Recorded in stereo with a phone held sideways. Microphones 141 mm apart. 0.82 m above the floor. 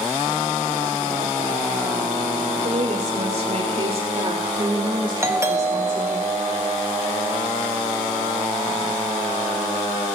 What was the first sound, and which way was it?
A woman speaking, 55° right (ahead or behind).